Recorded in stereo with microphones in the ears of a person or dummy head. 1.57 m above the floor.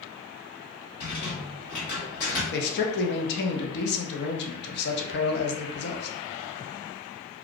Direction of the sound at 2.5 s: 60° left (ahead or behind).